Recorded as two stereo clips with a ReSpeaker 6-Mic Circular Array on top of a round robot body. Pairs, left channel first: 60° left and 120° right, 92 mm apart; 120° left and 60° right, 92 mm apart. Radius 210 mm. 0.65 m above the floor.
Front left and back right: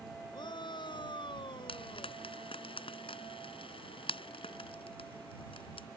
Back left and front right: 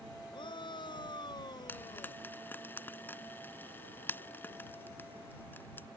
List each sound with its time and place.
0.3 s a shout: 95° left; by 2.2 s 80° left
1.7 s frying: 50° left